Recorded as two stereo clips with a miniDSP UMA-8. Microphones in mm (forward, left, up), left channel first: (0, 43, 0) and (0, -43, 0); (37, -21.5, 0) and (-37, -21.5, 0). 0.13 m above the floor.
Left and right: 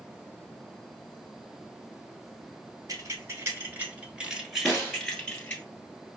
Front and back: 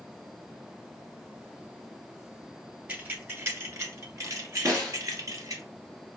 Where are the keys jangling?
120° right, 1.2 m; by 5.6 s 155° left, 1.4 m.